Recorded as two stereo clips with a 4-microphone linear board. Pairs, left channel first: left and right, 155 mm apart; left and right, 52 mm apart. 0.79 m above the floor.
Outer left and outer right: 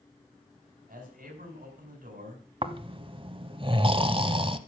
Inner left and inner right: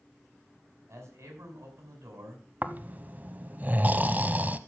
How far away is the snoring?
About 0.7 m.